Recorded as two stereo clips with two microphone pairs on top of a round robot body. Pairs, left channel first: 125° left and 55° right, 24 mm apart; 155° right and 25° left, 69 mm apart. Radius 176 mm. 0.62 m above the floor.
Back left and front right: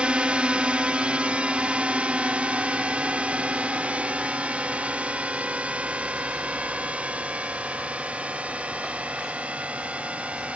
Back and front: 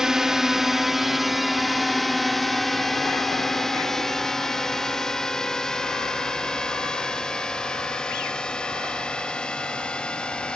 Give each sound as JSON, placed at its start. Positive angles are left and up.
{"t": 0.0, "sound": "a drone", "azimuth_deg": -55}